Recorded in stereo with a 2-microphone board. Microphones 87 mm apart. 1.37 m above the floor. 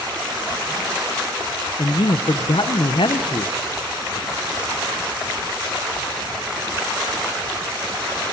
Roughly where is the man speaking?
Left.